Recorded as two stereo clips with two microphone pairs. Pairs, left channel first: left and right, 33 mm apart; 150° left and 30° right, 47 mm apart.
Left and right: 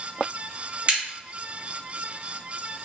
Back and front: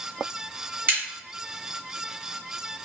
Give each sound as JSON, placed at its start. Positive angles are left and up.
{"t": 0.9, "sound": "a crack", "azimuth_deg": -65, "distance_m": 1.4}